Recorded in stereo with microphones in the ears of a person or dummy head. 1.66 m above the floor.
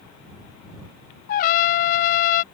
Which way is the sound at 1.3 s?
45° left (ahead or behind).